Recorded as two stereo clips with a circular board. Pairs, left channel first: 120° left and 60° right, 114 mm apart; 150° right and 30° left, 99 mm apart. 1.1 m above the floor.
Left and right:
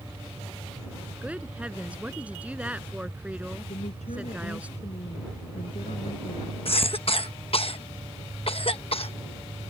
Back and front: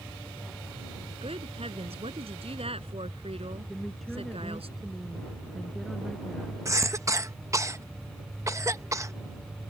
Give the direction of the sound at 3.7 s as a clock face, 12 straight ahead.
8 o'clock.